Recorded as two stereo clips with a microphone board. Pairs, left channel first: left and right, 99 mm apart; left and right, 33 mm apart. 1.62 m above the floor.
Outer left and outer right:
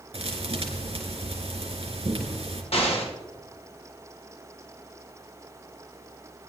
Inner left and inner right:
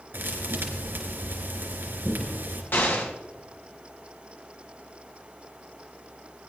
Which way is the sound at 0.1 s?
75° right (ahead or behind).